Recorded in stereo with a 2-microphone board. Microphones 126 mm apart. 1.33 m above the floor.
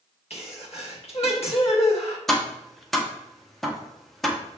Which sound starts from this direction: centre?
Tapping, at 2.3 s.